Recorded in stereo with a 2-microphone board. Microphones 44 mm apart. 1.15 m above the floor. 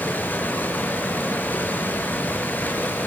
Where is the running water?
45° left (ahead or behind), 4.5 m.